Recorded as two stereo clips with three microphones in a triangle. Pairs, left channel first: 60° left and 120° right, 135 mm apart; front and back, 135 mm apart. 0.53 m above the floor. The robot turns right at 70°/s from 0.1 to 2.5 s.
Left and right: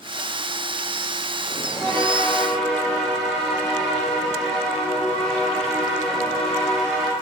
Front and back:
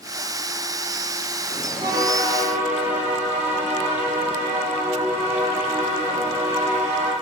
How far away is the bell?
About 1.4 m.